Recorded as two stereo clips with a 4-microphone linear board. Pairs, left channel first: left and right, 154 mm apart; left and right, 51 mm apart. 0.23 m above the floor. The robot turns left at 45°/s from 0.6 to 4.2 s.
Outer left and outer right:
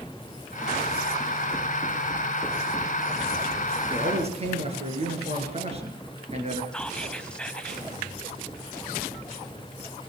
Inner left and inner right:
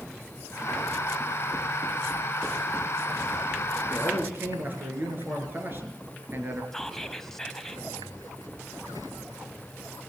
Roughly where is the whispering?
Centre.